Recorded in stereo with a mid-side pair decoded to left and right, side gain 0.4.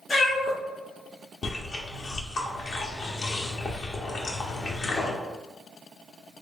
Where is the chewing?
55° left, 0.8 m.